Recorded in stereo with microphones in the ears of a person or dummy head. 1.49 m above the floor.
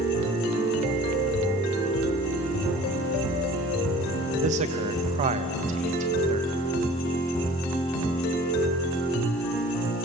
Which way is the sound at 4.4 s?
40° right (ahead or behind).